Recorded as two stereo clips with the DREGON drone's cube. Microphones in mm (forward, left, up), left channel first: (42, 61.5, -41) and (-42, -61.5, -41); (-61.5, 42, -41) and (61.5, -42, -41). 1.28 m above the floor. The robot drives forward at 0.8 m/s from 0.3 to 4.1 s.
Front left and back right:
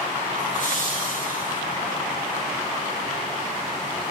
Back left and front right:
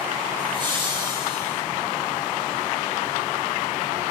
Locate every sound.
0.4 s laughter: 20° left, 7 m; by 1.6 s 25° left, 6 m